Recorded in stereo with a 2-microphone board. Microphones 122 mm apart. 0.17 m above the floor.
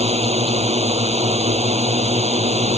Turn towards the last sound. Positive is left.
turn(degrees=-60)  # may be behind; listen again after turning